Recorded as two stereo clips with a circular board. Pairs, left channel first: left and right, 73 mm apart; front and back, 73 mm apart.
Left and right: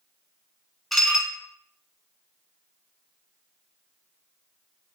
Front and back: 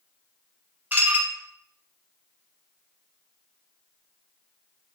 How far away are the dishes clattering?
About 0.7 m.